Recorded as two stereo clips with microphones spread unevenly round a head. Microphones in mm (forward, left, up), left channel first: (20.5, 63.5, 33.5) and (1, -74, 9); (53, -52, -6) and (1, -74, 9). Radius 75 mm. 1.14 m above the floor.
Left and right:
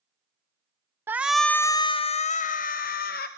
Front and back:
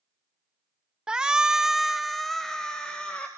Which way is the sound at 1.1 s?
65° right.